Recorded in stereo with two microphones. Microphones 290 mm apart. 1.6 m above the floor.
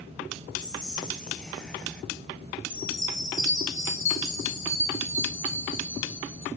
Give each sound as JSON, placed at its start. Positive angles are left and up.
{"t": 0.6, "sound": "whispering", "side_deg": 5, "distance_m": 1.1}
{"t": 2.7, "sound": "a chime", "side_deg": 40, "distance_m": 3.5}